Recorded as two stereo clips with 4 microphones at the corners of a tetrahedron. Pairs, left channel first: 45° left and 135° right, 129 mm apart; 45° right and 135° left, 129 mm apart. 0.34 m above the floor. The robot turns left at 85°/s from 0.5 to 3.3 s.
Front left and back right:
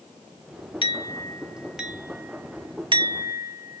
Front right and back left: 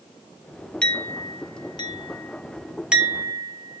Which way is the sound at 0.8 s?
30° left.